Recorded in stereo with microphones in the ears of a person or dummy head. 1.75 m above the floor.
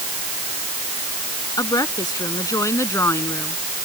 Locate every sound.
1.6 s a woman speaking: 20° left (ahead or behind); by 3.6 s 15° left (ahead or behind)